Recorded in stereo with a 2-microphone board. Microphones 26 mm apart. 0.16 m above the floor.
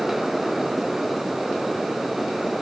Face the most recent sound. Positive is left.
No sound to turn to.